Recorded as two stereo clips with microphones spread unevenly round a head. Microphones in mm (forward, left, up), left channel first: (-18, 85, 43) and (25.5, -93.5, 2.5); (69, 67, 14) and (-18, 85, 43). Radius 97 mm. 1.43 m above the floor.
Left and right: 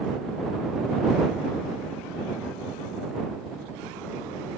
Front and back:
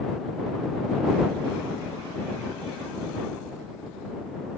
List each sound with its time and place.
Only background noise.